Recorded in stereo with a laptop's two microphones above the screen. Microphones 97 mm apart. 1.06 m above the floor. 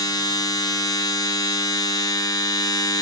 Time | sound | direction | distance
0.0 | a machine running | 40° left (ahead or behind) | 0.7 m